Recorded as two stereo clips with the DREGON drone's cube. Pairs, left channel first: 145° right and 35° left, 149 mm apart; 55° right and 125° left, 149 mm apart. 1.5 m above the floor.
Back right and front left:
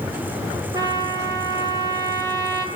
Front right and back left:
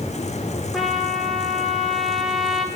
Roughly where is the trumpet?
Ahead left.